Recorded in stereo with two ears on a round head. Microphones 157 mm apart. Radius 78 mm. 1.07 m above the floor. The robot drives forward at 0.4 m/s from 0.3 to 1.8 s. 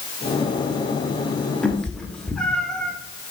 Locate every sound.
1.6 s a cat meowing: 5° left (ahead or behind), 0.8 m